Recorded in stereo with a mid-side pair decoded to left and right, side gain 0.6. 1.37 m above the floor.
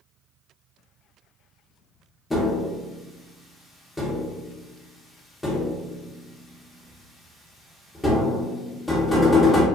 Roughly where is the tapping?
Ahead.